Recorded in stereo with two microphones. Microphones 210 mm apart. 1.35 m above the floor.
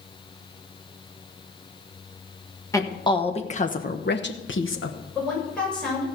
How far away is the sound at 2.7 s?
About 1.4 m.